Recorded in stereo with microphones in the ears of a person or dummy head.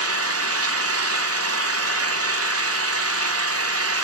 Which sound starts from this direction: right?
An engine running, at 0.0 s.